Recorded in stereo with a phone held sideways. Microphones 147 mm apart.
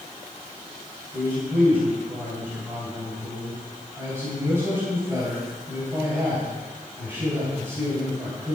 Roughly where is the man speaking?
Centre.